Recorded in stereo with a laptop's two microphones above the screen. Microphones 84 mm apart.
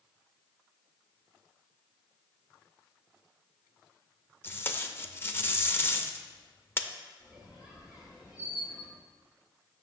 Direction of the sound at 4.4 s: 25° left (ahead or behind).